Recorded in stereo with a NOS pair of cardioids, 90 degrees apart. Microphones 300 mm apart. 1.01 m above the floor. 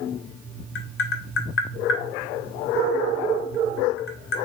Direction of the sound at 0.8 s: 45° left.